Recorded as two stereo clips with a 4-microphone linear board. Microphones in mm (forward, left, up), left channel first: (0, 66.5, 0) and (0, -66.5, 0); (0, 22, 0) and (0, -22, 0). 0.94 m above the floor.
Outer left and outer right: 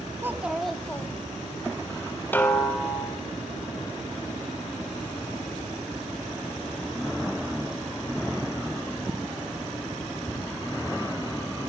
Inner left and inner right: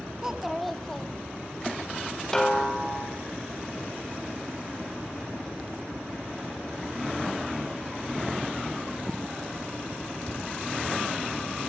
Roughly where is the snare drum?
Centre.